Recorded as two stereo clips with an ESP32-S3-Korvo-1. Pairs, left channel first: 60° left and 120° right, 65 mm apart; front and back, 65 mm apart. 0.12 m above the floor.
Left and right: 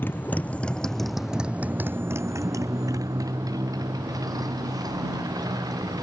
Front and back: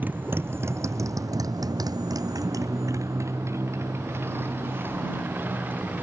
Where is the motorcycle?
115° left; by 6.0 s 120° right.